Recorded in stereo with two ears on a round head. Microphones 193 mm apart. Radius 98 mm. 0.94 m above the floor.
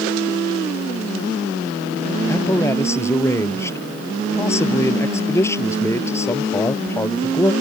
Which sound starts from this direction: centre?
A man speaking, at 2.3 s.